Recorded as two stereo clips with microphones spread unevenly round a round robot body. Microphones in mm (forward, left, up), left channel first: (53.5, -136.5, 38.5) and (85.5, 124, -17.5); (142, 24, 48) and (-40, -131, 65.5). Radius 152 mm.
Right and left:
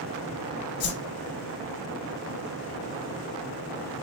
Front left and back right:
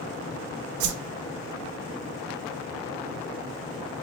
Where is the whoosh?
155° right, 0.5 m.